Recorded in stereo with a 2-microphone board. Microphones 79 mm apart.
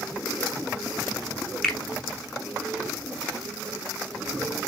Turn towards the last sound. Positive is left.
turn(degrees=5)  # may be behind; listen again after turning